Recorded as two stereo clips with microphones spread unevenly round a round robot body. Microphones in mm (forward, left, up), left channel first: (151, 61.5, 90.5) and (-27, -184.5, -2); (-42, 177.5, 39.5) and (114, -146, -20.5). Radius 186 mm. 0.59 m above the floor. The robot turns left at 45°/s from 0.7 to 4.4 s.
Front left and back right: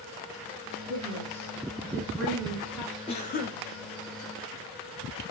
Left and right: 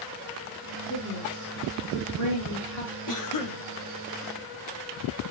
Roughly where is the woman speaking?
Behind right.